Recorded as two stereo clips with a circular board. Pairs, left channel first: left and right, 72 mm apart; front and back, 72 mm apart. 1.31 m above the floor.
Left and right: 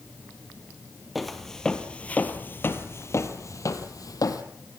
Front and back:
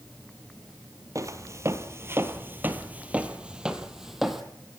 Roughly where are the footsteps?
Behind.